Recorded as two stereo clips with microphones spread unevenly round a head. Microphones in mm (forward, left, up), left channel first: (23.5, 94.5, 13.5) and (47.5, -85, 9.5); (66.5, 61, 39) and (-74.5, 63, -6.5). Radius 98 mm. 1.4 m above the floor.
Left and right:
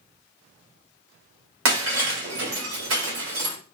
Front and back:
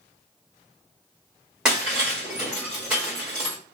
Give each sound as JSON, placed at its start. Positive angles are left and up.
{"t": 1.6, "sound": "breaking glass", "azimuth_deg": -90, "distance_m": 2.5}